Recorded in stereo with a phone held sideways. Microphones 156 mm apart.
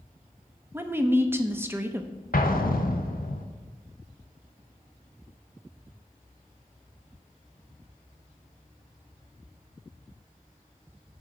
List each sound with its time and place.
0.7 s a woman speaking: 15° right (ahead or behind), 0.7 m
2.3 s an explosion: 75° left (ahead or behind), 0.8 m